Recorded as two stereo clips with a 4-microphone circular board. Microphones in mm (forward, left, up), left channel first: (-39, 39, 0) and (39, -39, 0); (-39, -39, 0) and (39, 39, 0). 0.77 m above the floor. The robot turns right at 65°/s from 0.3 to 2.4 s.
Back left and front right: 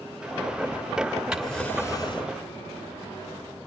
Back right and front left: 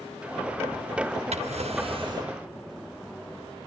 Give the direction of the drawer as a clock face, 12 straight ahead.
11 o'clock.